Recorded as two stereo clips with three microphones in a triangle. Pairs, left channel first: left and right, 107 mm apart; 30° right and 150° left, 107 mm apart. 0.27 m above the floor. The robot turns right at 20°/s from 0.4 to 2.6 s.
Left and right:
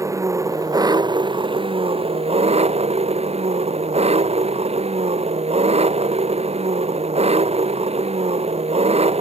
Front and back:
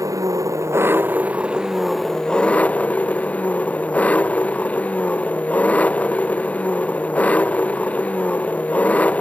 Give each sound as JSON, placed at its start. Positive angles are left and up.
{"t": 0.0, "sound": "an engine running", "azimuth_deg": -150}